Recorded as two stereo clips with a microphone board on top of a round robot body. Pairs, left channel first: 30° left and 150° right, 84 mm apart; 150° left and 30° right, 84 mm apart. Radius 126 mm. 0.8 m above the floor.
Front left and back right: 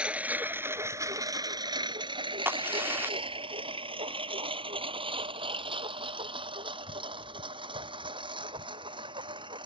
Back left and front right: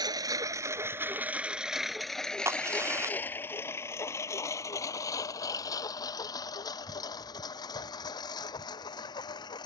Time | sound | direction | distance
0.0 | a lawn mower | 70° right | ?
2.5 | a crack | 85° right | ?